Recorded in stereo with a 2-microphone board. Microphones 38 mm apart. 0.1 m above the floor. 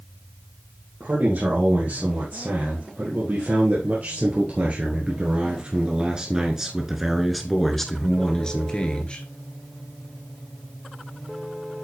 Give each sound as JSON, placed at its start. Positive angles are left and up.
{"t": 1.0, "sound": "a man speaking", "side_deg": -65, "distance_m": 3.5}